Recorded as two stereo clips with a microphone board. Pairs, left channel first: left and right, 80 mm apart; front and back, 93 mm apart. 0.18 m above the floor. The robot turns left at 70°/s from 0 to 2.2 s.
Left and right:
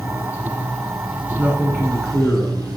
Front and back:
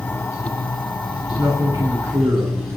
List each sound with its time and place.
0.0 s running water: 70° left, 1.3 m; by 2.8 s 85° right, 1.3 m
1.4 s a man speaking: 145° right, 1.8 m; by 2.8 s 155° left, 1.8 m